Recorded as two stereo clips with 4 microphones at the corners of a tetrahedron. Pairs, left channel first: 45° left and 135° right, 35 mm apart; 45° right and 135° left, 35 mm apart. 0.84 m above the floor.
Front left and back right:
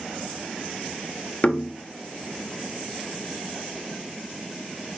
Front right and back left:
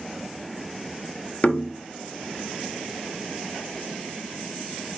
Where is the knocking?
5° right, 0.9 m.